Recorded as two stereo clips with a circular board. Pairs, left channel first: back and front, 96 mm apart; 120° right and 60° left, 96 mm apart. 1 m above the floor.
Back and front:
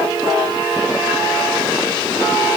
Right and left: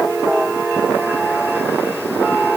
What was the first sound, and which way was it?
Only background noise.